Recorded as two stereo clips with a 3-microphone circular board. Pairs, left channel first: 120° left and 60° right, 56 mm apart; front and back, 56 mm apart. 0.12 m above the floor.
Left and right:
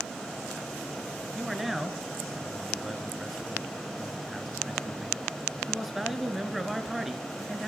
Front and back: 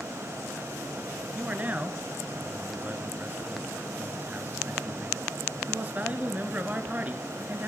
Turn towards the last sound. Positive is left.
turn(degrees=-145)